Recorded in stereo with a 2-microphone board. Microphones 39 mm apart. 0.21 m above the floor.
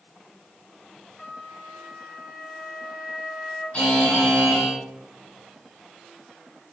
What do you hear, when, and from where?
1.2 s a flute: 5° right (ahead or behind), 1.0 m
3.7 s a buzzer: 25° left (ahead or behind), 1.6 m